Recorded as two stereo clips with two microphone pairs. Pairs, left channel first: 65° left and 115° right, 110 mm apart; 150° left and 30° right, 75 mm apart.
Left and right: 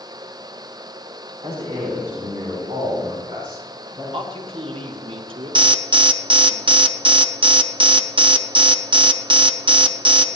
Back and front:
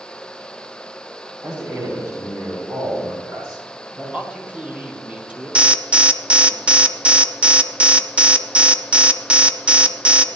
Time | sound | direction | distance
1.4 | a man speaking | 80° right | 3 m
4.1 | a man speaking | 105° right | 1.8 m
5.5 | an alarm | 105° right | 0.7 m